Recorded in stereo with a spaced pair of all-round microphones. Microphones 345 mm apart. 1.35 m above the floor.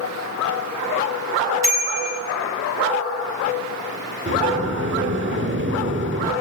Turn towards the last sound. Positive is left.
turn(degrees=-35)  # may be behind; listen again after turning